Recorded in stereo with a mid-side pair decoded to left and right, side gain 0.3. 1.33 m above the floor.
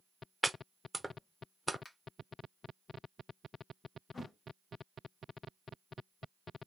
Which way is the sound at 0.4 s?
15° right.